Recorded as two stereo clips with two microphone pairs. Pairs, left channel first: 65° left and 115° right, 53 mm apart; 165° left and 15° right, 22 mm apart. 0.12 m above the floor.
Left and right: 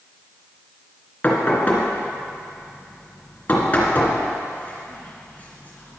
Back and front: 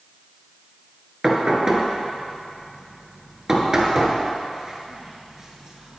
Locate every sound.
1.2 s knocking: 30° left, 1.5 m